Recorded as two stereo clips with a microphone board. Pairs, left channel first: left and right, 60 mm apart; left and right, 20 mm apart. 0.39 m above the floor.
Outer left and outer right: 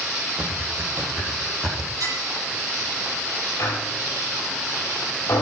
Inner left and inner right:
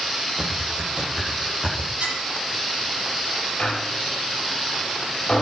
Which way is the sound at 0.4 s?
35° right (ahead or behind).